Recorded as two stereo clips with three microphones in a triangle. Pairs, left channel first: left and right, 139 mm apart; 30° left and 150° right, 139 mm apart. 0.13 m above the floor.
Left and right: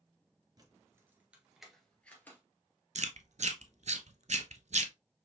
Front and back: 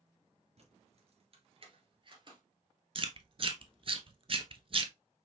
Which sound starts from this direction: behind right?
Keys jangling, at 0.6 s.